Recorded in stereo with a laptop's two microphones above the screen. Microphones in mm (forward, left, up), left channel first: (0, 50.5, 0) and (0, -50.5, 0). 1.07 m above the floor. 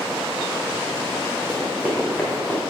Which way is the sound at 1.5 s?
10° left (ahead or behind).